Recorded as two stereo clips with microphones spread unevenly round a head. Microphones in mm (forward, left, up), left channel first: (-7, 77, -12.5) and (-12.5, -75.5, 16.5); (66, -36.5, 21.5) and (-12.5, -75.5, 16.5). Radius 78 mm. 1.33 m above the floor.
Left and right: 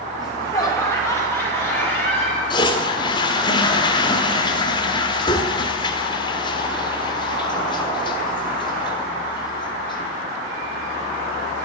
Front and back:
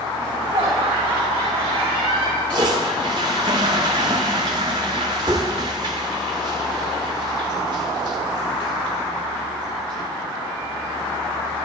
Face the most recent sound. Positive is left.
turn(degrees=150)